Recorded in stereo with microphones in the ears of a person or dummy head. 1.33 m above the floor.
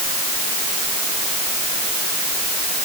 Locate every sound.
Only background noise.